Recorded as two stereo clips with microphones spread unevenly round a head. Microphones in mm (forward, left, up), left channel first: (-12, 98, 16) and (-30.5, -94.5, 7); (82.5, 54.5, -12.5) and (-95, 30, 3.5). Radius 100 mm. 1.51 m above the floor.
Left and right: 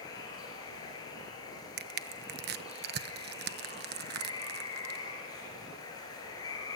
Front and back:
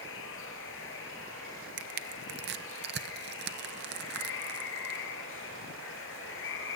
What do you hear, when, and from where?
0.0 s running water: 15° left, 5 m
1.8 s crushing: 135° right, 0.9 m